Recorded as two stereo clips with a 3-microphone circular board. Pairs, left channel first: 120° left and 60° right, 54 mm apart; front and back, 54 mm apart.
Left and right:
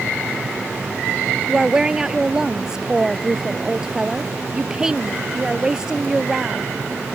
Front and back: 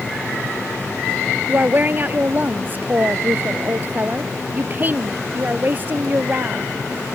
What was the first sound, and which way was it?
A woman speaking, 135° right.